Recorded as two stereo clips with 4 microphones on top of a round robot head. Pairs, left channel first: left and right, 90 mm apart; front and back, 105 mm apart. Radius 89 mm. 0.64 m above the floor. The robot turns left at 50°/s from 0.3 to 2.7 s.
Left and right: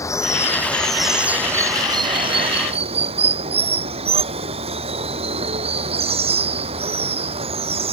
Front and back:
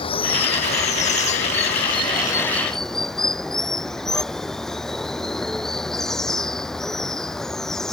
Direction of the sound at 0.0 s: 35° left.